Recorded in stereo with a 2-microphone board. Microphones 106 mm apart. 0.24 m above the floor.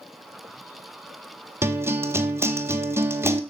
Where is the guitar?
25° right (ahead or behind), 1.5 m.